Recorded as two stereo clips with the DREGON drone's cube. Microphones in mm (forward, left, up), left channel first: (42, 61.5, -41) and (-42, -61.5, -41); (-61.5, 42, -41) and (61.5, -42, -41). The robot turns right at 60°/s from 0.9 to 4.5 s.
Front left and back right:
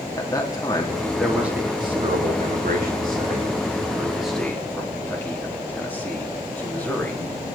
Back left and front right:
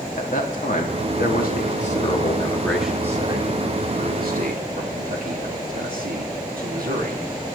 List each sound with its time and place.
0.2 s a man speaking: 120° left, 2.5 m; by 7.3 s 25° right, 2.5 m